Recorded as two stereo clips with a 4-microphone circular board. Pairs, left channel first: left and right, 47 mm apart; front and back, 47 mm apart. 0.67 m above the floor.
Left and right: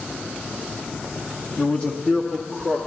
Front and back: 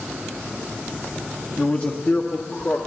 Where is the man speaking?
60° left, 1.0 m; by 2.8 s 15° left, 1.3 m.